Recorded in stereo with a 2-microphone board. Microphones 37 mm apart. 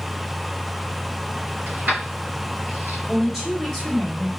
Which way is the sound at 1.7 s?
50° right (ahead or behind).